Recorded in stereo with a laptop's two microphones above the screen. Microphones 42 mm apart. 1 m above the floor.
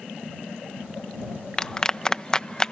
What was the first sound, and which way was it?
A clap, 20° left (ahead or behind).